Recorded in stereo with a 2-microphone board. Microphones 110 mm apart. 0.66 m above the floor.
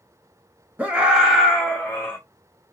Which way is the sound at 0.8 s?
10° right (ahead or behind).